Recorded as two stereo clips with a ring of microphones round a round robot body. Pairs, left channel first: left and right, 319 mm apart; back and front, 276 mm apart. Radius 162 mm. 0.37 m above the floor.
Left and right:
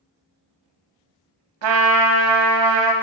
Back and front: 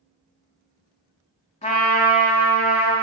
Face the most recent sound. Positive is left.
turn(degrees=-110)